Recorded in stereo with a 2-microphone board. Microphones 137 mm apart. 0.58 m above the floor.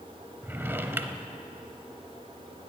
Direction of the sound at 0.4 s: 15° right (ahead or behind).